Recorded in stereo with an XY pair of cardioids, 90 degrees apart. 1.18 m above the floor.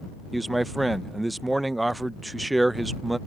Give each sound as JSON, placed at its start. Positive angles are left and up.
{"t": 0.3, "sound": "a man speaking", "azimuth_deg": -15}